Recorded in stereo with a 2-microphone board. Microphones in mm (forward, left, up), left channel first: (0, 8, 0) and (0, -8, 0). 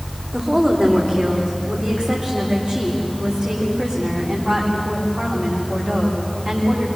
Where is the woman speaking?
80° right, 8 m; by 6.9 s 70° right (ahead or behind), 14 m.